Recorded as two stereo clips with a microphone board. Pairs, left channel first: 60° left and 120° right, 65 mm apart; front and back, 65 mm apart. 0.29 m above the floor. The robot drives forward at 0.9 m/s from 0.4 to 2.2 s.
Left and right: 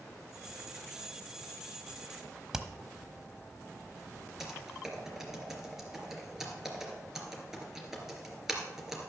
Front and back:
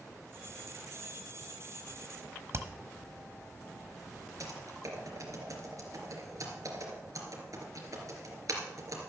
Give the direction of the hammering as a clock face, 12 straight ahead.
7 o'clock.